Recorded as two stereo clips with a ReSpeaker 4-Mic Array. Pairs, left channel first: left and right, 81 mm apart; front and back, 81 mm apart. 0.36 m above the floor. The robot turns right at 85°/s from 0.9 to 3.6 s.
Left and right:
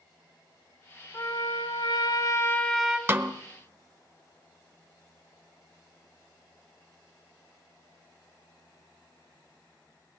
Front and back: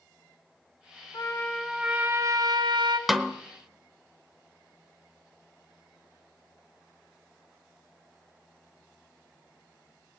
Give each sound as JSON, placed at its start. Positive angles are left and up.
{"t": 1.1, "sound": "a trumpet", "azimuth_deg": 40, "distance_m": 1.9}
{"t": 3.1, "sound": "a snare drum", "azimuth_deg": -95, "distance_m": 1.0}